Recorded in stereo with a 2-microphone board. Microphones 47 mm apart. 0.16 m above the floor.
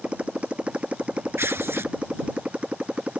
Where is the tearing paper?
65° right (ahead or behind).